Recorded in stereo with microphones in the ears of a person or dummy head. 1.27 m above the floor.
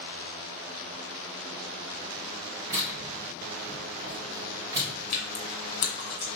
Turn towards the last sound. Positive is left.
turn(degrees=50)  # may be behind; listen again after turning